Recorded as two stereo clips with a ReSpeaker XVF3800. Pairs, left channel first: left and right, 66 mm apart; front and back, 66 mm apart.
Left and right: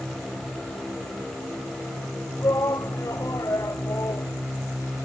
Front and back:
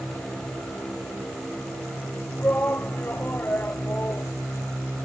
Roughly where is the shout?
Ahead left.